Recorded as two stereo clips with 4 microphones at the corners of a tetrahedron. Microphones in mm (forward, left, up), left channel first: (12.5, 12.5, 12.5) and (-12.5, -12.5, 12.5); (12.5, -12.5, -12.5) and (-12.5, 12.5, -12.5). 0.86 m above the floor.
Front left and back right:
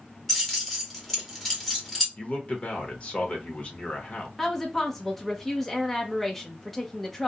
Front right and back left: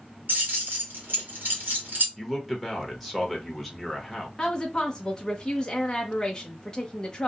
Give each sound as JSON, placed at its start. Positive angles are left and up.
{"t": 0.3, "sound": "keys jangling", "azimuth_deg": 125, "distance_m": 1.2}
{"t": 2.2, "sound": "a man speaking", "azimuth_deg": 40, "distance_m": 1.0}
{"t": 4.4, "sound": "a woman speaking", "azimuth_deg": -30, "distance_m": 0.7}